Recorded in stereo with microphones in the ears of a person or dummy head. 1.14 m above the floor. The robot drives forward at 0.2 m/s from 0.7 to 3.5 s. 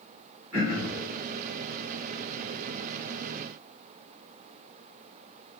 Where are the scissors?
No scissors in this recording.